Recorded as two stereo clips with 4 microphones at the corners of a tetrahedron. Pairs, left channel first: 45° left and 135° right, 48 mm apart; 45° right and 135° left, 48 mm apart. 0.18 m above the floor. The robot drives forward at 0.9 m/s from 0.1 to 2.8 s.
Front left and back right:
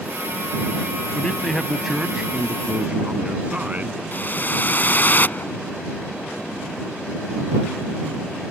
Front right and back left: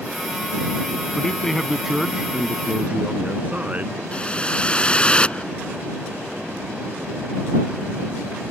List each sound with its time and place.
1.1 s a man speaking: 5° left; by 4.0 s straight behind
4.1 s a whoosh: 15° left